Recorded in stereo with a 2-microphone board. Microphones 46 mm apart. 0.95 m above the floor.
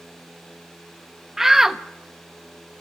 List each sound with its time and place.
1.4 s a shout: 10° right (ahead or behind), 1.0 m